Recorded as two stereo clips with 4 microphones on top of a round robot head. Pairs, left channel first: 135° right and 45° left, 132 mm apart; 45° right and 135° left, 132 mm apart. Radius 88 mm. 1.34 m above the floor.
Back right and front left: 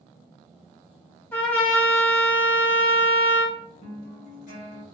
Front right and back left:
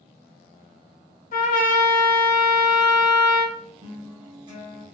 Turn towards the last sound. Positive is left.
turn(degrees=-165)